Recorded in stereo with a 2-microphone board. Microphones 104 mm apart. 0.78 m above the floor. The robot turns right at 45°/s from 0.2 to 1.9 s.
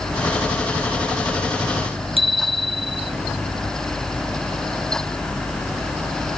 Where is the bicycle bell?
65° right (ahead or behind).